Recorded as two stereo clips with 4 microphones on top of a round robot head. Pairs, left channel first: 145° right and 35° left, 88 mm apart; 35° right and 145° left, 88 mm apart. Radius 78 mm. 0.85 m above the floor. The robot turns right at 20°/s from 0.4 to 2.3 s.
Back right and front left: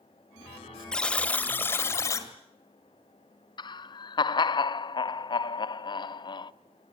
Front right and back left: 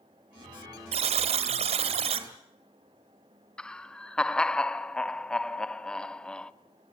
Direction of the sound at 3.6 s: 115° right.